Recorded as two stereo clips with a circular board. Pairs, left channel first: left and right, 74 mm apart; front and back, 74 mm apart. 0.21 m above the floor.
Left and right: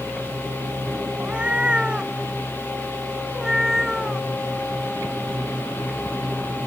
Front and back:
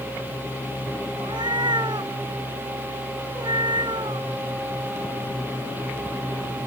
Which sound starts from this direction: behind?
A cat meowing, at 1.2 s.